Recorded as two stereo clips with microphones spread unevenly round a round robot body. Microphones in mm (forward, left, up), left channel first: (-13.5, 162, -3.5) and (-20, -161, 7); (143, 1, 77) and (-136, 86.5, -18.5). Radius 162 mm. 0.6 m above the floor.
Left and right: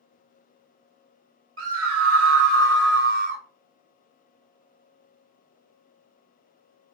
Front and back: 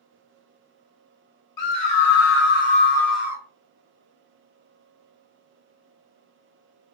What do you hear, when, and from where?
1.6 s a scream: 45° right, 1.1 m; by 3.4 s 155° right, 0.7 m